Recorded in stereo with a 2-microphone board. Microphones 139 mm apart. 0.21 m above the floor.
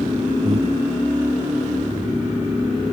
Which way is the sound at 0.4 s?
50° right (ahead or behind).